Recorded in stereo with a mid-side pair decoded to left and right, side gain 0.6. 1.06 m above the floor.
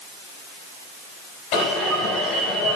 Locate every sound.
1.5 s an alarm: 70° left, 5.5 m